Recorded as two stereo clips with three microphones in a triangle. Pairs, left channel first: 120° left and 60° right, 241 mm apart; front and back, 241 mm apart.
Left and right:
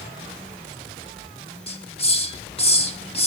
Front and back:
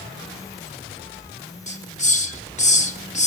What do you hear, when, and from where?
1.7 s a hiss: 60° left, 1.4 m